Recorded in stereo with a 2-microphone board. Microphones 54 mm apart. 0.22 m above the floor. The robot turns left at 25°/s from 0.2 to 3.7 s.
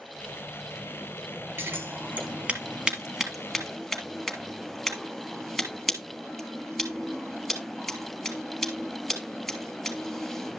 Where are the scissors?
50° right (ahead or behind), 3 m; by 10.6 s centre (ahead or behind), 3 m.